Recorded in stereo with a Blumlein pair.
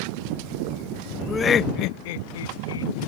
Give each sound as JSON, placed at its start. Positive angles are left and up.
{"t": 1.3, "sound": "laughter", "azimuth_deg": 15}